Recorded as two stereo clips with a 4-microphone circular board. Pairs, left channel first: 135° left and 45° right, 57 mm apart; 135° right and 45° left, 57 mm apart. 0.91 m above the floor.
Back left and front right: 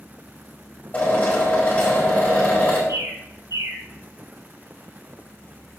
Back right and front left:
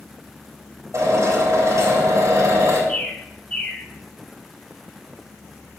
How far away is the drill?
About 4.5 m.